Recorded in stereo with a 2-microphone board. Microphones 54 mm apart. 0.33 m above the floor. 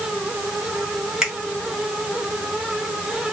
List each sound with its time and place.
1.2 s a finger snap: 10° right (ahead or behind), 1.6 m